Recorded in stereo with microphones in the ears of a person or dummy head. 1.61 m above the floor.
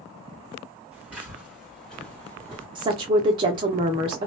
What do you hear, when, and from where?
0.9 s footsteps: 10° right (ahead or behind), 1.9 m; by 2.6 s 15° left (ahead or behind), 1.7 m
2.8 s a woman speaking: 30° right (ahead or behind), 0.6 m